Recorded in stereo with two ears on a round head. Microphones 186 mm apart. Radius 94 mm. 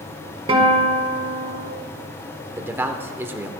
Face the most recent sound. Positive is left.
turn(degrees=-10)  # may be behind; listen again after turning